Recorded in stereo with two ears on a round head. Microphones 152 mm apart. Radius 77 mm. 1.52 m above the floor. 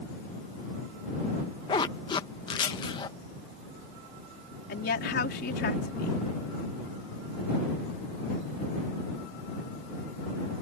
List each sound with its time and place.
1.7 s a zipper: 25° left (ahead or behind)
4.7 s a woman speaking: 70° left (ahead or behind)